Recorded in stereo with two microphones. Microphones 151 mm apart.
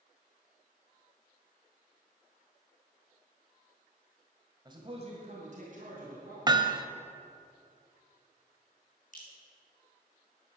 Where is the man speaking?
25° right (ahead or behind), 1.6 m; by 6.4 s 65° right (ahead or behind), 3.5 m.